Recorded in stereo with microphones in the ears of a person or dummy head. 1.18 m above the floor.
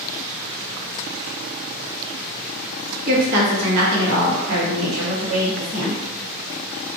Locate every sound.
3.1 s a woman speaking: 50° right (ahead or behind), 1.1 m; by 6.0 s 65° right (ahead or behind), 1.7 m